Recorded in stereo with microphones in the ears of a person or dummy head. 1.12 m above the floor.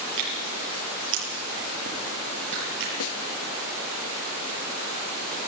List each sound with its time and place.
0.2 s tearing paper: 60° right (ahead or behind), 8.5 m
3.0 s a snare drum: 75° left (ahead or behind), 1.4 m